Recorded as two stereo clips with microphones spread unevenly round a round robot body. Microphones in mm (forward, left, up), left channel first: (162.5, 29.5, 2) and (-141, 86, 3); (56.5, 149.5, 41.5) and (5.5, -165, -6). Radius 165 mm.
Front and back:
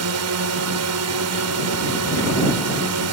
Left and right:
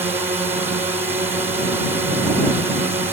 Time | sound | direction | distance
0.0 | a drone | 175° right | ?